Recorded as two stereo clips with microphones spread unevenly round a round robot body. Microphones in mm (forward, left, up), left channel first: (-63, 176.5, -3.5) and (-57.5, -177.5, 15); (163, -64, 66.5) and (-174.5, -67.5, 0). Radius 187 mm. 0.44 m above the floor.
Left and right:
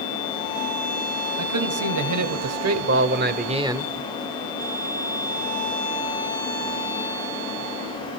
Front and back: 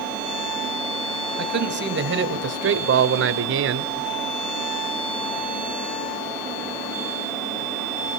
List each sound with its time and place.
1.4 s a man speaking: 125° right, 3 m; by 3.9 s 175° left, 1.3 m